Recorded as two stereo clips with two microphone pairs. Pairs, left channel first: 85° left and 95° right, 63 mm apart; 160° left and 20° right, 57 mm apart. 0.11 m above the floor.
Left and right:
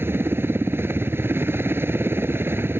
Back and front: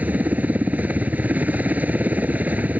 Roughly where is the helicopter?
Ahead right.